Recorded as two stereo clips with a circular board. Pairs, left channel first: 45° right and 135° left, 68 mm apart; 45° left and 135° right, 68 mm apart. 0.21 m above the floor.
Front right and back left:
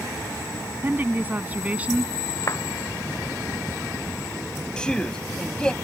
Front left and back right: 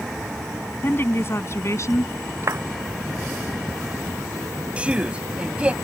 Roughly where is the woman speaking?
Left.